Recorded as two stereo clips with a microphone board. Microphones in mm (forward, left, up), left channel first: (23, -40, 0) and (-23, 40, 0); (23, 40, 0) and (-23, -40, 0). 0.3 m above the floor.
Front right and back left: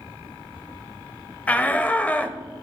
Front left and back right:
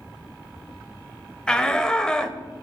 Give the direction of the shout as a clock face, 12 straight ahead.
12 o'clock.